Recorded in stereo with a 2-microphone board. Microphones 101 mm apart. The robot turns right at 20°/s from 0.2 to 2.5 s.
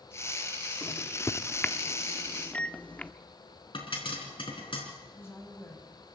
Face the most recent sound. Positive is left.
turn(degrees=25)  # may be behind; listen again after turning